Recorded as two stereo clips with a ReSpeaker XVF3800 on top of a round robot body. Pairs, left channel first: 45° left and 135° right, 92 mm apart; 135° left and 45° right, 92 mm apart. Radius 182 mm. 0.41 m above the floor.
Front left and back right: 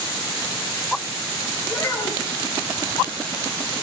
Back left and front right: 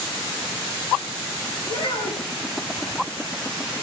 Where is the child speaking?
105° left, 7 m.